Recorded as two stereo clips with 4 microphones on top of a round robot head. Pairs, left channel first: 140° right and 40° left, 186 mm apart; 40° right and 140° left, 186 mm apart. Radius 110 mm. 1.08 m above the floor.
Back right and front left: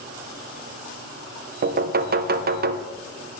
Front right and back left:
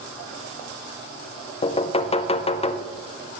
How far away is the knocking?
About 0.5 m.